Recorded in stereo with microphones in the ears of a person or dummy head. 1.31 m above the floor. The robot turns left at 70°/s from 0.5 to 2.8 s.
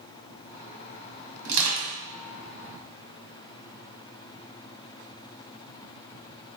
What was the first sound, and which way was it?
Crushing, 65° right (ahead or behind).